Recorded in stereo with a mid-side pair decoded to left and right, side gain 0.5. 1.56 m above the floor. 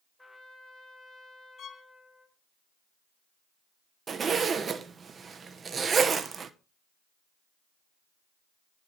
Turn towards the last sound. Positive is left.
turn(degrees=-35)